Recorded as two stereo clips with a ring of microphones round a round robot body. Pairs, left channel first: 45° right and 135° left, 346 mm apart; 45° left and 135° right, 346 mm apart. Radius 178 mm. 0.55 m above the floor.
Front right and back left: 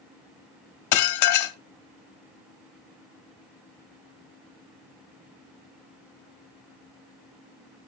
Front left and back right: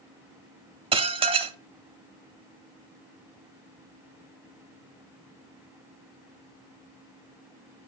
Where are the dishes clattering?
65° right, 0.6 m.